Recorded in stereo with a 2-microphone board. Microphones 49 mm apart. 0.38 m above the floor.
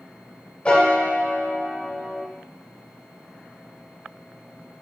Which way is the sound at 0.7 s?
25° left (ahead or behind).